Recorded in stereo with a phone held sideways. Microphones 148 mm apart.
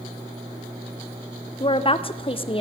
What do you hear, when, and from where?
1.6 s a woman speaking: 35° left (ahead or behind), 0.8 m